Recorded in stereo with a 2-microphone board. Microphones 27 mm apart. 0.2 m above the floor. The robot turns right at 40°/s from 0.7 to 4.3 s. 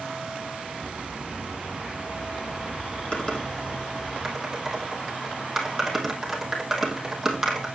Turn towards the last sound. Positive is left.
turn(degrees=-10)  # may be behind; listen again after turning